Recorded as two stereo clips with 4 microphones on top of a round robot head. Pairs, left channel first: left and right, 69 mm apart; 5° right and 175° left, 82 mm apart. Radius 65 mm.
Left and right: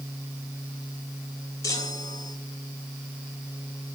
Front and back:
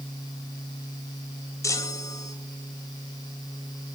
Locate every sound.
1.6 s a chime: 45° left, 3 m